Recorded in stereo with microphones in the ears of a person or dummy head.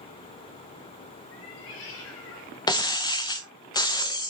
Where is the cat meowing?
75° left (ahead or behind), 5 m; by 3.6 s 70° left (ahead or behind), 3.5 m.